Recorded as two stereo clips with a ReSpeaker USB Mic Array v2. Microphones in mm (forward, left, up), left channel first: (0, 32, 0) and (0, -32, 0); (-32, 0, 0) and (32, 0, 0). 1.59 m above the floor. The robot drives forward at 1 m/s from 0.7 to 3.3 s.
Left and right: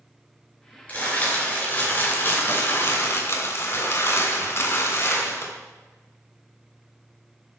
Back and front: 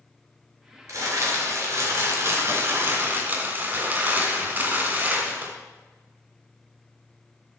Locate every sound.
0.9 s crumpling: 25° left, 4.5 m; by 5.5 s 55° left, 2.5 m